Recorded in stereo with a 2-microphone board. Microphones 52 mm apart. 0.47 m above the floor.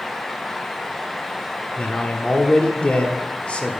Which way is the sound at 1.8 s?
20° left (ahead or behind).